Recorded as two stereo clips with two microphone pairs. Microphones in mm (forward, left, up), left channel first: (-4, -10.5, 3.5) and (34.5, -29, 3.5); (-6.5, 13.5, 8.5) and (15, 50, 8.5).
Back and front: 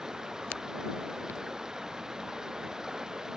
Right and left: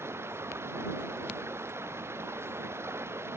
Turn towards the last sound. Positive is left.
turn(degrees=50)